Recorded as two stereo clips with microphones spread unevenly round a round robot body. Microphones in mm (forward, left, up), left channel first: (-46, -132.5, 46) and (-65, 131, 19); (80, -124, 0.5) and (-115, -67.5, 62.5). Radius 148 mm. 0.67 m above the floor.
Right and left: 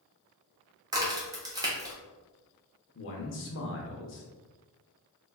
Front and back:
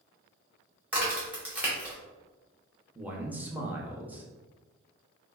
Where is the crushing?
I don't hear crushing.